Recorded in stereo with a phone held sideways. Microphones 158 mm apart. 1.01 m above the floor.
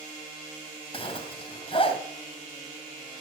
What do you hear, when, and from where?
0.9 s a zipper: 35° left (ahead or behind), 2 m